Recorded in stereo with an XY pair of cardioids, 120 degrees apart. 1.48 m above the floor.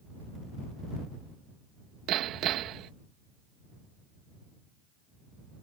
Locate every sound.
2.1 s hammering: 70° right